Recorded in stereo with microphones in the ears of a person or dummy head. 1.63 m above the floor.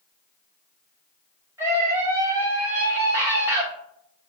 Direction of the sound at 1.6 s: 15° right (ahead or behind).